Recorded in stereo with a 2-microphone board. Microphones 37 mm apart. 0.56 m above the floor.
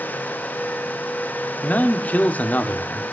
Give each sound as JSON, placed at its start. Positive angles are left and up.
{"t": 1.6, "sound": "a man speaking", "side_deg": 45, "distance_m": 1.7}